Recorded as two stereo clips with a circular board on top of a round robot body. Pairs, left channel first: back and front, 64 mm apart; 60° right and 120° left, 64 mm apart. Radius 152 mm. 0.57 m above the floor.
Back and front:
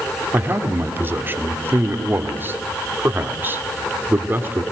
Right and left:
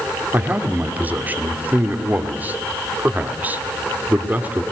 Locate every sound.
0.3 s a man speaking: 55° left, 2.5 m